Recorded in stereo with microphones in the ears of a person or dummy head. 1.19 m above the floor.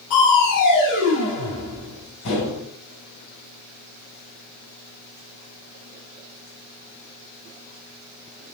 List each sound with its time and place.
0.1 s crushing: 50° left (ahead or behind), 3.5 m